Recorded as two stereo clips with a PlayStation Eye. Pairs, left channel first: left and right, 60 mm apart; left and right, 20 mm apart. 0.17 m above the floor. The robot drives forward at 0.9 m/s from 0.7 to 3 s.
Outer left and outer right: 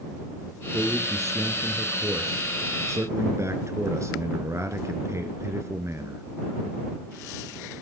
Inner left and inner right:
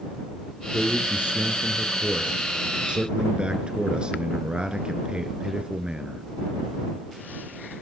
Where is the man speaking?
50° right (ahead or behind), 2.5 m.